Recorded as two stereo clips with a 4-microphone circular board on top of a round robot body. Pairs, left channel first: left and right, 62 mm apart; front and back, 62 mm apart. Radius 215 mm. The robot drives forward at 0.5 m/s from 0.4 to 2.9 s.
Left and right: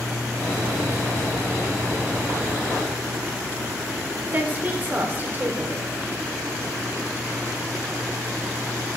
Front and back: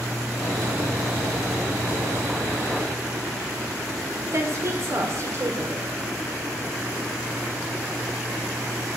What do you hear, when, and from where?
4.3 s a woman speaking: 150° right, 1.5 m